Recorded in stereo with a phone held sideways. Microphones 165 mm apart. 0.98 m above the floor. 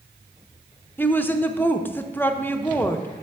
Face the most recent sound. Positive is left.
turn(degrees=10)  # may be behind; listen again after turning